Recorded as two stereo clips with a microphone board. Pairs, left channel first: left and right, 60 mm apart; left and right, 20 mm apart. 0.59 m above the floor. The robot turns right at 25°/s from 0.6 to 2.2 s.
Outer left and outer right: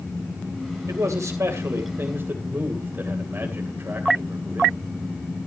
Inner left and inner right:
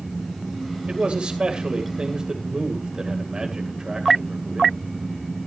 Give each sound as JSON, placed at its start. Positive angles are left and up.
{"t": 0.9, "sound": "a man speaking", "azimuth_deg": -75, "distance_m": 2.5}